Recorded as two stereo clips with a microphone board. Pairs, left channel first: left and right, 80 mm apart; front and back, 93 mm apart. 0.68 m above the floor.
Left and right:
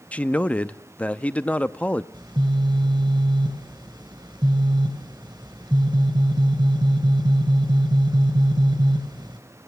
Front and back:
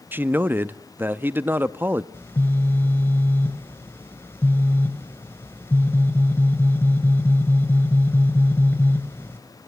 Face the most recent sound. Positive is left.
turn(degrees=-65)